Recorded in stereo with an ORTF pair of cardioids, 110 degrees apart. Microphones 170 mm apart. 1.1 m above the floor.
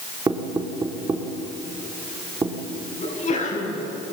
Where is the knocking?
25° right, 2.5 m.